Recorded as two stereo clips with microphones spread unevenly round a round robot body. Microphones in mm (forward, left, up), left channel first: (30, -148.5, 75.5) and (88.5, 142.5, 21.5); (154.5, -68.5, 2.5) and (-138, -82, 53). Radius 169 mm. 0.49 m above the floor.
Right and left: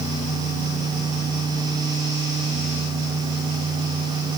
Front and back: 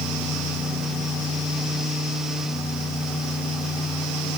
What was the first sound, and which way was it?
Only background noise.